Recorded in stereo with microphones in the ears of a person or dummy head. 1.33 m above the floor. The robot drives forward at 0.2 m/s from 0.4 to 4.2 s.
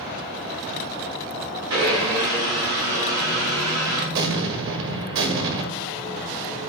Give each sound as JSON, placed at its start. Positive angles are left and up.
{"t": 1.7, "sound": "a blender", "side_deg": -80, "distance_m": 4.0}
{"t": 4.1, "sound": "an explosion", "side_deg": -65, "distance_m": 1.6}